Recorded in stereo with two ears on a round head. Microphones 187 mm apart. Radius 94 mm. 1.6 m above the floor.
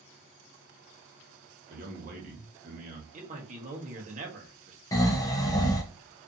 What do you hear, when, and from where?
1.7 s a man speaking: 40° right (ahead or behind), 1.1 m
3.1 s a man speaking: 35° right (ahead or behind), 0.9 m
4.9 s snoring: 15° left (ahead or behind), 0.7 m